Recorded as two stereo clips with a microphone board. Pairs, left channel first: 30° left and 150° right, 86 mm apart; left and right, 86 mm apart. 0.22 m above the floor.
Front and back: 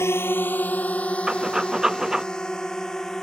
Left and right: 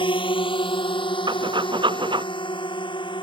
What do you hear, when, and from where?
0.0 s a drone: 90° left; by 3.2 s 115° left
1.3 s breathing: 65° right